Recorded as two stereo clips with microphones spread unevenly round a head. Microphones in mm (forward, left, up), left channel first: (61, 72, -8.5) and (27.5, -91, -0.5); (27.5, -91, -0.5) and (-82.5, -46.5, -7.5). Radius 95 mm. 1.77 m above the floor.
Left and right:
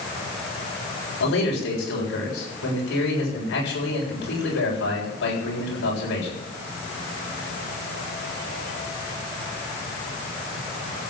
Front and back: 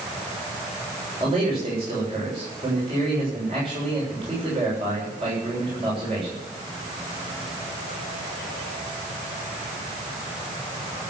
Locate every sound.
1.2 s a man speaking: 95° left, 7.5 m